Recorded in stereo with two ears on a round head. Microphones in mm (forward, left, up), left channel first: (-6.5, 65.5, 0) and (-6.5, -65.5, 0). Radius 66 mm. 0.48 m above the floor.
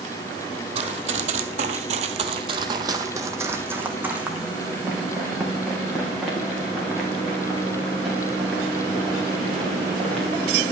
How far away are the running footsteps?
About 0.9 m.